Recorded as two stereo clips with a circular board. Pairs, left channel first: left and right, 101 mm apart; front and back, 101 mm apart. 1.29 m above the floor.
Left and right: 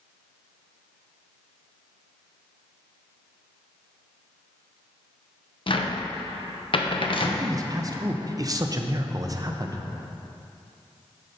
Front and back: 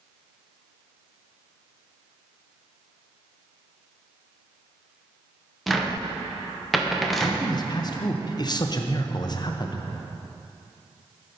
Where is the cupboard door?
90° left, 0.7 m.